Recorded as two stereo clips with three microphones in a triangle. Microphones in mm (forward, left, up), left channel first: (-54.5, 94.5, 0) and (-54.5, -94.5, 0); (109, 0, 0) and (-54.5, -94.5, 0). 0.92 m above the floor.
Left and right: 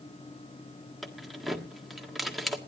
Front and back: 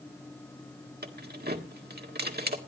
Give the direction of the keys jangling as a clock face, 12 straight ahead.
6 o'clock.